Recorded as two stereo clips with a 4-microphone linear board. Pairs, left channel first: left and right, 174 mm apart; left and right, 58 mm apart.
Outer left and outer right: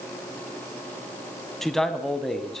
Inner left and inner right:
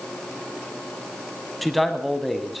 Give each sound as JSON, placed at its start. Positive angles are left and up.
{"t": 1.6, "sound": "a man speaking", "side_deg": 0, "distance_m": 1.3}